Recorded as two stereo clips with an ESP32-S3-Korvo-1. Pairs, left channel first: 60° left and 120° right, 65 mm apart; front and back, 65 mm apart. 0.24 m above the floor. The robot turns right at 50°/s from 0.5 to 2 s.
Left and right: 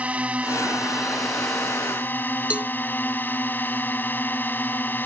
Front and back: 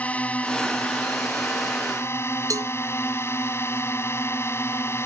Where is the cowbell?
170° left.